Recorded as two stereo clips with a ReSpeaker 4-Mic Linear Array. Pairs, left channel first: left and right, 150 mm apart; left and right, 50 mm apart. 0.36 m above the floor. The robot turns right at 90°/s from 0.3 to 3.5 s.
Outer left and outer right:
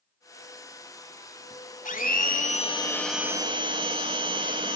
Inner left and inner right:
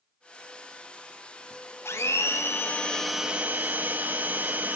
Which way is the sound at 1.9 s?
65° left.